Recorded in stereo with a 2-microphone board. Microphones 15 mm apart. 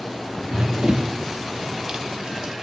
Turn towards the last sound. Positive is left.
turn(degrees=-45)  # may be behind; listen again after turning